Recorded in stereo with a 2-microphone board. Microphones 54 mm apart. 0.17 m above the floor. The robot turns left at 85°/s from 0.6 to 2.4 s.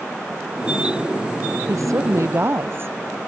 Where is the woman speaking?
70° right; by 3.0 s 130° right.